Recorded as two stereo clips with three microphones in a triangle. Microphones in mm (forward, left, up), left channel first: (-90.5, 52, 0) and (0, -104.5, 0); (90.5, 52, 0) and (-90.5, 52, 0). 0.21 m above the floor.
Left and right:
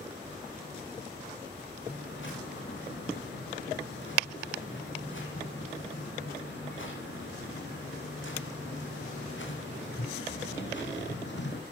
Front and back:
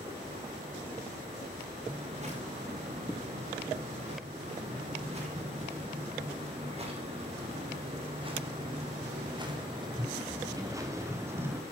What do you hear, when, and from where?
1.9 s footsteps: 125° left, 9 m; by 11.6 s 100° left, 3 m